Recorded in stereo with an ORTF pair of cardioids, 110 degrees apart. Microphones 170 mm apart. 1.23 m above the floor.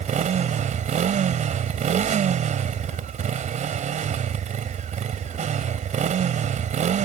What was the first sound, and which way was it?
A motorcycle, 50° right.